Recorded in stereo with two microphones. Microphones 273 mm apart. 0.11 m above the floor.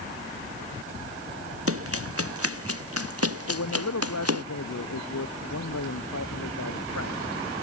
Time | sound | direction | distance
1.7 | running footsteps | 55° right (ahead or behind) | ?
3.5 | a man speaking | 80° left | ?